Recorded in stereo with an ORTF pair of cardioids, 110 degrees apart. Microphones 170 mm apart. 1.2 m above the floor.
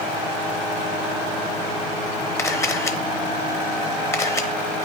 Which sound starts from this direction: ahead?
A camera shutter, at 2.4 s.